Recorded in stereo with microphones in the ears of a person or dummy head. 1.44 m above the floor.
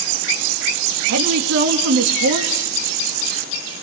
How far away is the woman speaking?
About 2.5 m.